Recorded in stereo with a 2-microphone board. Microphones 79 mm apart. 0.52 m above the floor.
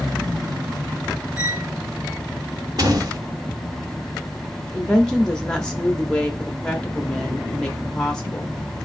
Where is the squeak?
40° left (ahead or behind), 2.0 m.